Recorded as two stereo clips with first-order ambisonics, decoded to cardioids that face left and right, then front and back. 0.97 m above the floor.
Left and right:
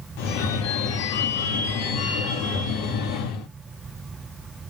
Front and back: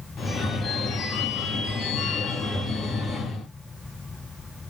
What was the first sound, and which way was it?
A phone ringing, 70° left.